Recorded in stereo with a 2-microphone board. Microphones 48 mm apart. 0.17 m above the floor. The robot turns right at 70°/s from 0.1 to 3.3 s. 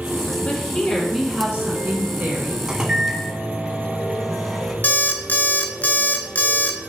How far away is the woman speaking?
About 2 m.